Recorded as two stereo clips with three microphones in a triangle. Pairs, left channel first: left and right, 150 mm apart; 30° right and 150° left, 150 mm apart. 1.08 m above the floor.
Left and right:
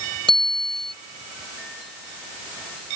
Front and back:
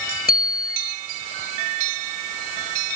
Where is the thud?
I don't hear a thud.